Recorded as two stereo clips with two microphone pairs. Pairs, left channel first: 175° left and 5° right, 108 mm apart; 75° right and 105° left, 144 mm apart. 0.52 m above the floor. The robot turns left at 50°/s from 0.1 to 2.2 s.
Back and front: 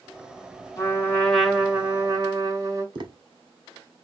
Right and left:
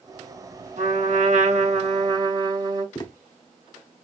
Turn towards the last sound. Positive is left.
turn(degrees=-20)